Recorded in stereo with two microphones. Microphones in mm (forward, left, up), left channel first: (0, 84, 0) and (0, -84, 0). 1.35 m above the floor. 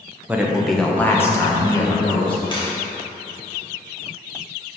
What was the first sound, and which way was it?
A man speaking, 10° right (ahead or behind).